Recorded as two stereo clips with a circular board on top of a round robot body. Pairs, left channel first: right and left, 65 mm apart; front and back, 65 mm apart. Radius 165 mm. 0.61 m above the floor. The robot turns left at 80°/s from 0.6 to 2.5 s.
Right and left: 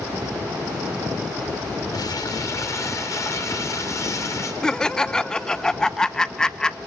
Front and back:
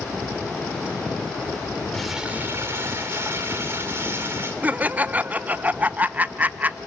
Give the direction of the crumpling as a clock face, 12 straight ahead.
3 o'clock.